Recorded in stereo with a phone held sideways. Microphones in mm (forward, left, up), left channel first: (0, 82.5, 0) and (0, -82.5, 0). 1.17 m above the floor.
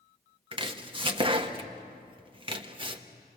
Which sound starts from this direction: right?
Chopping, at 0.5 s.